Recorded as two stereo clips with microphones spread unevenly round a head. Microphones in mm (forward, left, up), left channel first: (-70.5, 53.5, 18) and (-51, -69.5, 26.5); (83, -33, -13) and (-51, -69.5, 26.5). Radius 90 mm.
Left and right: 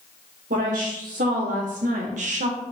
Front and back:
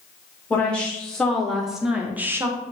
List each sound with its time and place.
0.5 s a woman speaking: 60° right, 1.6 m; by 2.6 s 95° right, 0.7 m